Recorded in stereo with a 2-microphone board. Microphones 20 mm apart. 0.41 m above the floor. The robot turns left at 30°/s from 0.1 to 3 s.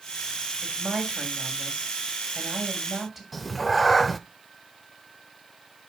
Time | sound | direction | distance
0.6 | a woman speaking | 100° right | 2.5 m
3.3 | a cat meowing | centre (ahead or behind) | 0.6 m